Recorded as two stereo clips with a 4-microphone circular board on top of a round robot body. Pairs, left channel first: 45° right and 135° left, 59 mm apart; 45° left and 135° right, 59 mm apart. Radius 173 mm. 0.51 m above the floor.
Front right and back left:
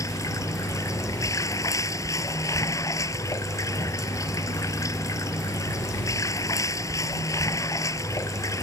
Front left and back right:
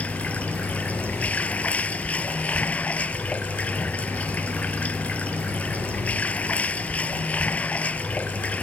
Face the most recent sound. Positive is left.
turn(degrees=-20)